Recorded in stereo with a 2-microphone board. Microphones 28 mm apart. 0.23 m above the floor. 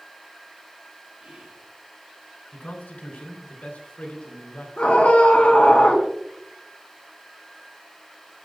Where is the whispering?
70° right (ahead or behind), 4.5 m.